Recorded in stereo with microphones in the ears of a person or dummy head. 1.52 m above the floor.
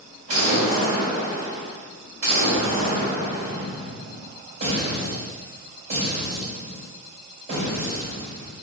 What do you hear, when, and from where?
0.3 s an explosion: 50° right (ahead or behind), 2 m